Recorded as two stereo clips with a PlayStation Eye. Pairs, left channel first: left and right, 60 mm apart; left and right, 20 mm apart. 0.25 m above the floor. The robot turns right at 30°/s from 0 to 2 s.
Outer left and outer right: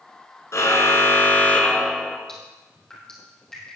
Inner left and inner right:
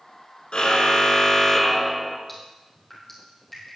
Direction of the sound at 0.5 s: 125° left.